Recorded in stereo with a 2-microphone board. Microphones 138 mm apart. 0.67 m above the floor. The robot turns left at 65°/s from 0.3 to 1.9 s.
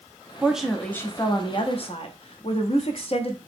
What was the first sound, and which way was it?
A woman speaking, 165° right.